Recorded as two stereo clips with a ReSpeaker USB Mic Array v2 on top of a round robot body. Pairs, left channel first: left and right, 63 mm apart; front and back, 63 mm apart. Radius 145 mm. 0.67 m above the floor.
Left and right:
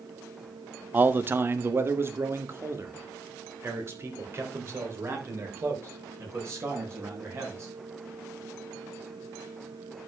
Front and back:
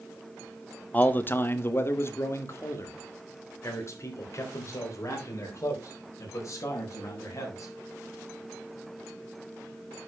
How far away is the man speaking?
About 1.0 m.